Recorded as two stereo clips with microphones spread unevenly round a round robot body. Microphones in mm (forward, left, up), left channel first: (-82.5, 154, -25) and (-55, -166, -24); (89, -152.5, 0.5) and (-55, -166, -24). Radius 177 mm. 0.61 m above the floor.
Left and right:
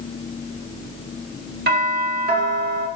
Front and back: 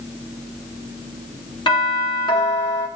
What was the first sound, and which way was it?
A doorbell, 45° right.